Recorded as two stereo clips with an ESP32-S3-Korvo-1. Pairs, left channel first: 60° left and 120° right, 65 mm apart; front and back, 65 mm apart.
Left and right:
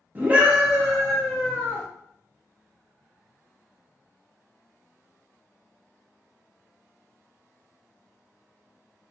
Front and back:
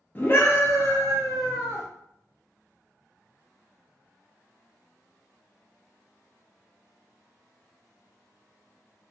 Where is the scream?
60° right, 0.9 m; by 1.9 s 5° right, 1.2 m.